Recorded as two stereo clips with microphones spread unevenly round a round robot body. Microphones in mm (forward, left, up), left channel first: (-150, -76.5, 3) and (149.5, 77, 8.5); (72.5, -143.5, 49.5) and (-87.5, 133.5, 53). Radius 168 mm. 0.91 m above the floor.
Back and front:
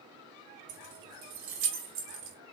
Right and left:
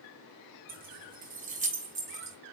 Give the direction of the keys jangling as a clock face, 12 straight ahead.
10 o'clock.